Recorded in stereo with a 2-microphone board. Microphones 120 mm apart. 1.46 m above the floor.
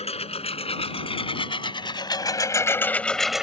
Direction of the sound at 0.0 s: 60° left (ahead or behind).